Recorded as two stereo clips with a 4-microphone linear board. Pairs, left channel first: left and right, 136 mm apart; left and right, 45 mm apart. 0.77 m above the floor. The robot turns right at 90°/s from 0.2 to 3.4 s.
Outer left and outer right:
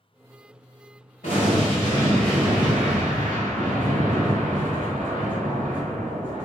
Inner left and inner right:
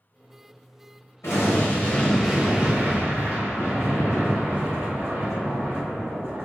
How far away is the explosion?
About 1.4 m.